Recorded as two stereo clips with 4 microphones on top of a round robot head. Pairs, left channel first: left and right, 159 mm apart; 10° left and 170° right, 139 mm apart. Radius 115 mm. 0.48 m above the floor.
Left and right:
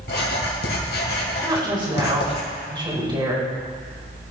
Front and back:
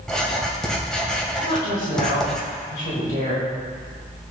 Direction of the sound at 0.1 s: 95° left.